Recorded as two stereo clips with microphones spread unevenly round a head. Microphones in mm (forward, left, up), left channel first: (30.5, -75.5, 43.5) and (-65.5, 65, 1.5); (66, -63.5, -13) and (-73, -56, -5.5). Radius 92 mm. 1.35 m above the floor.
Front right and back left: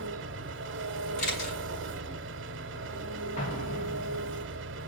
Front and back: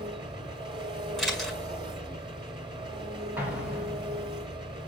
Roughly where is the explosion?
Right.